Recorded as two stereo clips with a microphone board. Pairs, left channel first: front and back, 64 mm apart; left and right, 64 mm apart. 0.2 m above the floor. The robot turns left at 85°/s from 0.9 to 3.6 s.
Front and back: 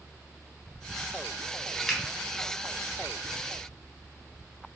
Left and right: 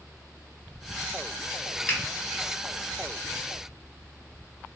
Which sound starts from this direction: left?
A finger snap, at 1.9 s.